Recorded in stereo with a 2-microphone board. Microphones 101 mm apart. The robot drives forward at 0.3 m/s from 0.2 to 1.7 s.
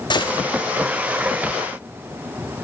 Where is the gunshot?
50° left (ahead or behind), 1.0 m.